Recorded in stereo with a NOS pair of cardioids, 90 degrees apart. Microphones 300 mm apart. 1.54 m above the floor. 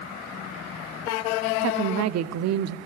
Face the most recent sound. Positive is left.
turn(degrees=-65)